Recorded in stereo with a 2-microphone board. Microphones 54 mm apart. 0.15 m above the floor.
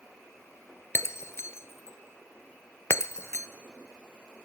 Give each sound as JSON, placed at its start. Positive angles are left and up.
{"t": 0.9, "sound": "breaking glass", "side_deg": 55, "distance_m": 0.7}